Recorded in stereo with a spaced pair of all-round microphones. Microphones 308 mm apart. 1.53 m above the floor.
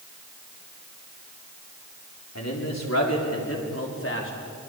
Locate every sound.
2.4 s a man speaking: 60° left (ahead or behind), 5 m; by 4.3 s 40° left (ahead or behind), 4 m